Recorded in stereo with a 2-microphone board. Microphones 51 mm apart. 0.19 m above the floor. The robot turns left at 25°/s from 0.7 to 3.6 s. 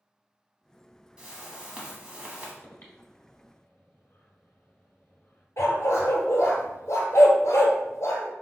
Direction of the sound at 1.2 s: 15° right (ahead or behind).